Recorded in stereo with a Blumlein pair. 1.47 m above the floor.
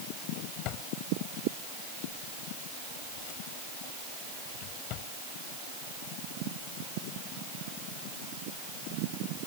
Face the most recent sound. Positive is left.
turn(degrees=40)